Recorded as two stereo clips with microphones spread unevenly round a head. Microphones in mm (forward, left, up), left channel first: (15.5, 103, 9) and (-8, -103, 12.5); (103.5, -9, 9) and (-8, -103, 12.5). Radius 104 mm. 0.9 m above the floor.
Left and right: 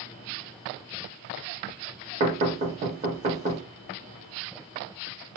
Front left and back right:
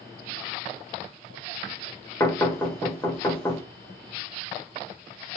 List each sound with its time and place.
2.2 s knocking: 35° right, 1.3 m